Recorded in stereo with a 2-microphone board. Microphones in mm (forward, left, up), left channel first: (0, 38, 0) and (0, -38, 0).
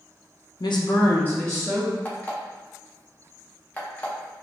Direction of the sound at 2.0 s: 20° left (ahead or behind).